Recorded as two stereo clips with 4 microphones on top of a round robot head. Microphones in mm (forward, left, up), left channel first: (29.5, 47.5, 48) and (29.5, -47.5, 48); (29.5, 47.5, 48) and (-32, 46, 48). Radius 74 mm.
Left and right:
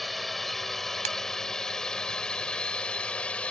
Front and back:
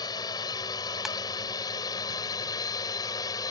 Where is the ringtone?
90° right.